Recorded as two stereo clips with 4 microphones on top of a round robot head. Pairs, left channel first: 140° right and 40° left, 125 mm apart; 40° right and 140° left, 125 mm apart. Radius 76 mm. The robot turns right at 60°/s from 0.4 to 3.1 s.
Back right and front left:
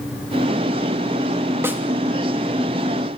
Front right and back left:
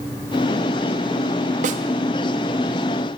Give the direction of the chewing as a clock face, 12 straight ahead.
I don't hear chewing.